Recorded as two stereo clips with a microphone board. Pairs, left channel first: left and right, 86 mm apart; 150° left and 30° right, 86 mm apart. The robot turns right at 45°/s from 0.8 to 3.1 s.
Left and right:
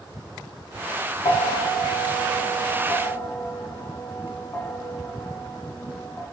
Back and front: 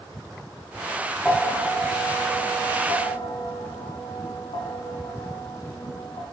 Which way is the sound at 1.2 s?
65° left.